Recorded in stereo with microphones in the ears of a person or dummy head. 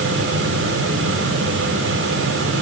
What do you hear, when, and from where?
0.0 s a fan: 80° right, 4 m